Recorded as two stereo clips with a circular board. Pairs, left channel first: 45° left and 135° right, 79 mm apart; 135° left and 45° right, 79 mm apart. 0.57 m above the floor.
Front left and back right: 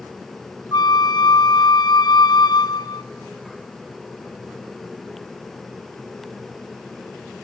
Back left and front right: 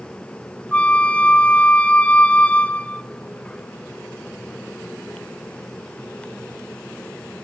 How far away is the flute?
About 0.7 m.